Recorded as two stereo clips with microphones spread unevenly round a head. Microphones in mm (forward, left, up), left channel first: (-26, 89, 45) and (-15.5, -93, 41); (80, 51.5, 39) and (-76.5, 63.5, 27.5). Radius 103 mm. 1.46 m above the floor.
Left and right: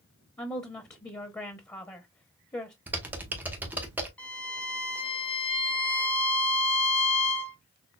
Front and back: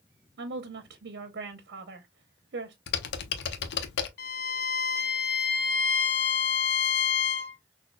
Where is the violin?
10° left, 1.2 m.